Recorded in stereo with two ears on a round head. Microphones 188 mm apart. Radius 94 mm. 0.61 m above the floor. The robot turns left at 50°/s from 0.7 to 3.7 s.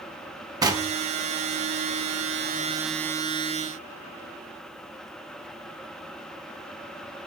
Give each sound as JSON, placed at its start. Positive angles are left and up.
{"t": 0.6, "sound": "knocking", "side_deg": -20, "distance_m": 1.1}